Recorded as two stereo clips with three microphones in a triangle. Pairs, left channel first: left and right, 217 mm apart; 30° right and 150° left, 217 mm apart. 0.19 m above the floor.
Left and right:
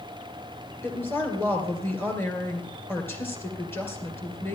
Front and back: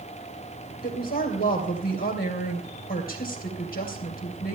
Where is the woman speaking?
10° left, 2.5 m.